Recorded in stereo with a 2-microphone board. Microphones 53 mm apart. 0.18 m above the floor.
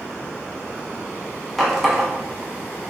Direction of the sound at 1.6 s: Centre (ahead or behind).